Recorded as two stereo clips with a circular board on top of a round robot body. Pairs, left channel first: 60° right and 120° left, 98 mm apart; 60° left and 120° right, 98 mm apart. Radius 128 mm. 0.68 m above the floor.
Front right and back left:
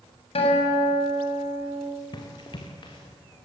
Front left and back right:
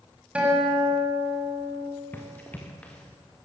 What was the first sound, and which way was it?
A guitar, 45° right.